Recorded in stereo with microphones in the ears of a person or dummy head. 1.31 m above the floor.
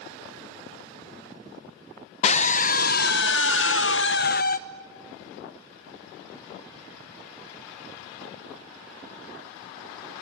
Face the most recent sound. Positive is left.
turn(degrees=50)  # may be behind; listen again after turning